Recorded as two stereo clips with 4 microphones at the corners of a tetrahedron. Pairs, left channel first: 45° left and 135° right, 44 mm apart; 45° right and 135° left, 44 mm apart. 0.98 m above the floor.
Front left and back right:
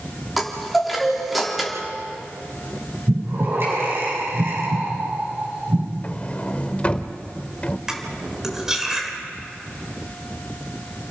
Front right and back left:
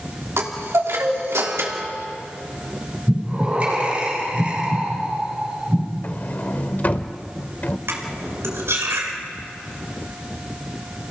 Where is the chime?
135° left, 3 m.